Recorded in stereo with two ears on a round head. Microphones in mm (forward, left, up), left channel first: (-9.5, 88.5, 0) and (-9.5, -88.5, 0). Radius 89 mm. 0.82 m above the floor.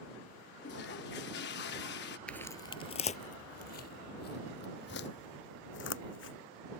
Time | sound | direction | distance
0.6 | a toilet flushing | 60° left (ahead or behind) | ?
2.3 | footsteps | 5° left (ahead or behind) | ?